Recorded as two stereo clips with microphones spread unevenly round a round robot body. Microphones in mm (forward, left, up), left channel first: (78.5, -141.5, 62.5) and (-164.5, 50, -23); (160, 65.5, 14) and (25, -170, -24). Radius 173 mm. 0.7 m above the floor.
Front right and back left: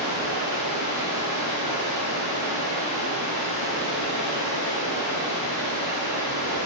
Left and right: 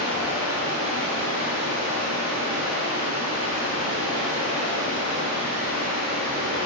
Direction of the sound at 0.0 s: 140° left.